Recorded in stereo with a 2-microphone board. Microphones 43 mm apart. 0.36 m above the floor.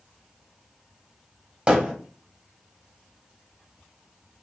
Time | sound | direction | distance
1.7 | hammering | 20° right (ahead or behind) | 1.0 m